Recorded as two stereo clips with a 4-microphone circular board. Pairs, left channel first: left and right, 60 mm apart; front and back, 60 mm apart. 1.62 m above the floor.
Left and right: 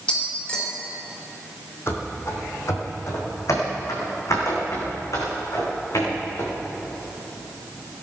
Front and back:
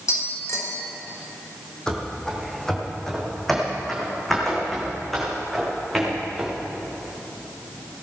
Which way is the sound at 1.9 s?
75° left.